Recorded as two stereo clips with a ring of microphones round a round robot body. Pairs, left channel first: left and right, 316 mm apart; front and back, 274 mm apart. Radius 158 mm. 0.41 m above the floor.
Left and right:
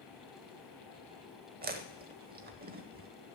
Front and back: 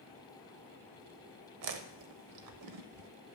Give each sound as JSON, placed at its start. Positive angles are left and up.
{"t": 1.6, "sound": "chewing", "azimuth_deg": -155, "distance_m": 0.7}